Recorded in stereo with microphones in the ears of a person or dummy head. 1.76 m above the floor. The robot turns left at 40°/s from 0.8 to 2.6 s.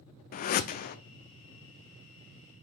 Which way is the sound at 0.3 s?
50° left (ahead or behind).